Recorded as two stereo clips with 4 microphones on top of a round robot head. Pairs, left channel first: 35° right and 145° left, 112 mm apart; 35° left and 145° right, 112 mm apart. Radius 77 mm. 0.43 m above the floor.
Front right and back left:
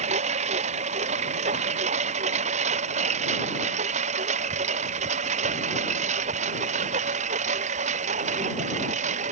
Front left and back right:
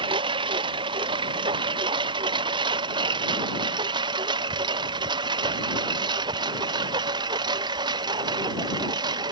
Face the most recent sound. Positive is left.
turn(degrees=165)